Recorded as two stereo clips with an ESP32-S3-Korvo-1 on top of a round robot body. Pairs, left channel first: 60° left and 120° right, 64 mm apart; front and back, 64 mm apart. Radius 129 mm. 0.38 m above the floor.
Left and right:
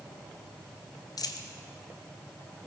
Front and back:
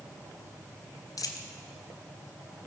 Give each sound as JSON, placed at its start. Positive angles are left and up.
{"t": 1.2, "sound": "a dropped coin", "azimuth_deg": 35, "distance_m": 0.9}